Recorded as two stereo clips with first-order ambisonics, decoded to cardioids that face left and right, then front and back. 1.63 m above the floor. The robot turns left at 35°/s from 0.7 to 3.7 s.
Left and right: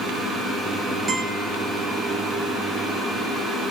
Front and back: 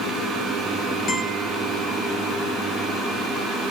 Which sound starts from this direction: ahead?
A guitar, at 1.1 s.